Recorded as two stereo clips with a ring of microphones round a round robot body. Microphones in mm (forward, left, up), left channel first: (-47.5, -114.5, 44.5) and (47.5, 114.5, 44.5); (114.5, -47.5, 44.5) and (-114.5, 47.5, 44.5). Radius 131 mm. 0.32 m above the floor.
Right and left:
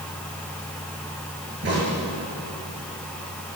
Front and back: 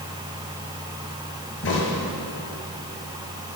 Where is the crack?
20° left, 7.5 m.